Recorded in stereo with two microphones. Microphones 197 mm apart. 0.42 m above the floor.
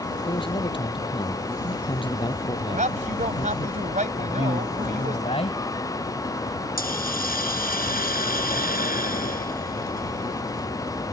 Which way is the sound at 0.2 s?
25° left (ahead or behind).